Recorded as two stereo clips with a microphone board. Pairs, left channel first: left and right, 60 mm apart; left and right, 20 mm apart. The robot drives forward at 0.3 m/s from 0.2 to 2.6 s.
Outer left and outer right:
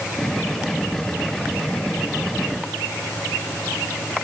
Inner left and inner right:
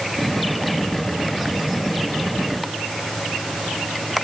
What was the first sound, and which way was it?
Only background noise.